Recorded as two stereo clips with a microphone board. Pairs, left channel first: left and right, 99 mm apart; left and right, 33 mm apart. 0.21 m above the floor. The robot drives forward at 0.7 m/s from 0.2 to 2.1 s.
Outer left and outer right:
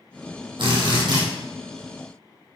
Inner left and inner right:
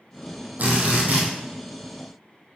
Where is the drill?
55° right (ahead or behind), 2.5 m; by 1.2 s 50° right (ahead or behind), 3 m.